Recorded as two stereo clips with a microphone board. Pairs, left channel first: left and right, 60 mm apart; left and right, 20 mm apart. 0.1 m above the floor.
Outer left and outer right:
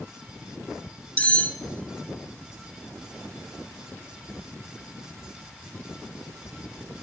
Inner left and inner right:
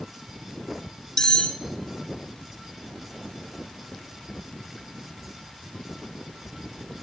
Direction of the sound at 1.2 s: 25° left (ahead or behind).